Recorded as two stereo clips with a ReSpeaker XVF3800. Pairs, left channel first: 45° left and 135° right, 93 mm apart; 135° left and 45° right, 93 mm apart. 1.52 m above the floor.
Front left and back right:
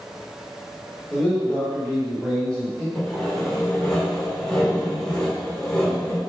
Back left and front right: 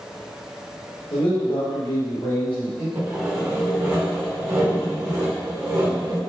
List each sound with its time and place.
1.1 s a man speaking: 120° left, 1.9 m
3.0 s sawing: 35° right, 1.5 m